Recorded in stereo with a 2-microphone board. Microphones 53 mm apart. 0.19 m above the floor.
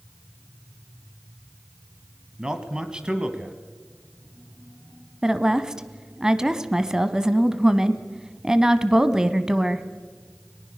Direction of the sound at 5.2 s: 10° right (ahead or behind).